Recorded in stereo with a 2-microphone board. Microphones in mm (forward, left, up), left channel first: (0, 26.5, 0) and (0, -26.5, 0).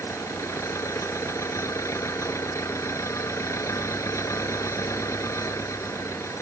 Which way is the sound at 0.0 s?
65° left (ahead or behind).